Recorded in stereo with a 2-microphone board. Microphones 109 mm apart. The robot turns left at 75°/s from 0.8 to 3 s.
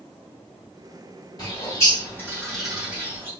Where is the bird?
35° left (ahead or behind), 1.8 m; by 3.3 s 15° right (ahead or behind), 1.8 m.